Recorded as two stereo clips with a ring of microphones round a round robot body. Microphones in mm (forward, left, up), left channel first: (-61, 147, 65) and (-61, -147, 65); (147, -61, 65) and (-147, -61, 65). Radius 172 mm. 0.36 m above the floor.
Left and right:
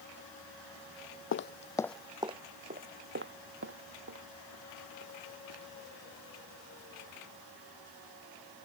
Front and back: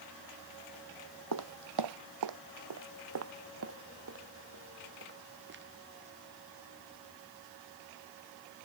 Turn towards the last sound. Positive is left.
turn(degrees=-125)